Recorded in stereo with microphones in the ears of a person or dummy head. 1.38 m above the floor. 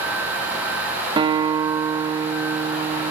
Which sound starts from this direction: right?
A guitar, at 1.2 s.